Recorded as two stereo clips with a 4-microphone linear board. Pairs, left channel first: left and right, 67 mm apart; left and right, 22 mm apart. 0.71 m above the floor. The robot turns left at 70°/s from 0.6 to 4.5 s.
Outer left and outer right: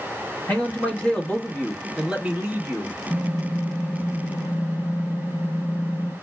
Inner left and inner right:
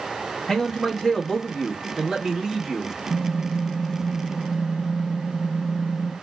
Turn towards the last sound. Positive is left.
turn(degrees=85)